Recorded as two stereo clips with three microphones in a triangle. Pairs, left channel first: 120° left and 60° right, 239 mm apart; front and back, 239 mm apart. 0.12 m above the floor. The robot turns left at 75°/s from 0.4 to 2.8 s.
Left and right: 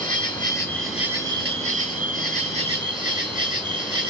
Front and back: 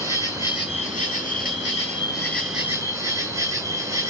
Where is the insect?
65° left, 2.5 m; by 4.1 s 115° right, 2.5 m.